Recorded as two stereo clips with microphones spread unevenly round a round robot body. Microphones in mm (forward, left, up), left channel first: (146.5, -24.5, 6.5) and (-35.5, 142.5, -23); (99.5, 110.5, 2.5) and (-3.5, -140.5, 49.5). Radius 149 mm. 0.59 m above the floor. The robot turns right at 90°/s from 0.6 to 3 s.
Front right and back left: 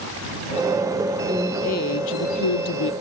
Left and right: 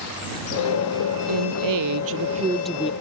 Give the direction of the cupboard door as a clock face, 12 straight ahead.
No cupboard door in this recording.